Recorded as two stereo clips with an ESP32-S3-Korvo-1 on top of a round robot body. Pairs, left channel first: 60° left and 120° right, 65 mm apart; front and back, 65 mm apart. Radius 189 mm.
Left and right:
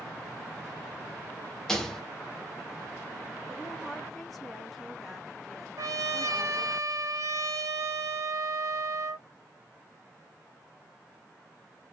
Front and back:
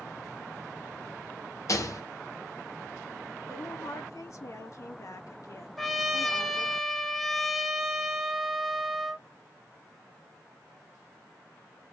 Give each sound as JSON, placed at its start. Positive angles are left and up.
{"t": 1.7, "sound": "a rattle", "azimuth_deg": -25, "distance_m": 1.3}
{"t": 3.5, "sound": "a woman speaking", "azimuth_deg": -30, "distance_m": 1.5}
{"t": 5.8, "sound": "a trumpet", "azimuth_deg": -90, "distance_m": 1.0}